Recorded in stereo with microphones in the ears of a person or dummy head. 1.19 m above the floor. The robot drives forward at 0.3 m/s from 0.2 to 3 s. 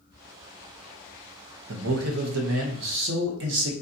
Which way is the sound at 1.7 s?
85° right.